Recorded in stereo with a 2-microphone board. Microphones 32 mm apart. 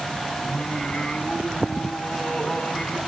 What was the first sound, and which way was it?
Singing, 30° left (ahead or behind).